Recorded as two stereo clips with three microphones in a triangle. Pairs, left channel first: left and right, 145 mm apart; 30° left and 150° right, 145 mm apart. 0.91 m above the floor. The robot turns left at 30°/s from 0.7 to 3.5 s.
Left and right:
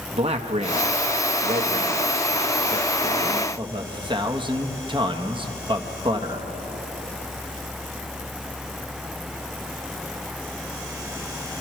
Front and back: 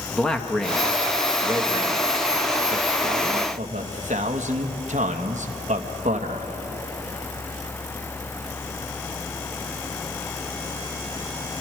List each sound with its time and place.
0.1 s a man speaking: 55° right, 1.1 m; by 6.5 s 140° right, 1.1 m